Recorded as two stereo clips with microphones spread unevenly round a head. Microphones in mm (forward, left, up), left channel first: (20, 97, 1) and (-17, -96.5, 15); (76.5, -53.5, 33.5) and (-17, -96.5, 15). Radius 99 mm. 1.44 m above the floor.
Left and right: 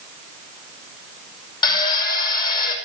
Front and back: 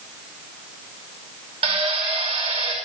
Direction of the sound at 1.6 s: 145° left.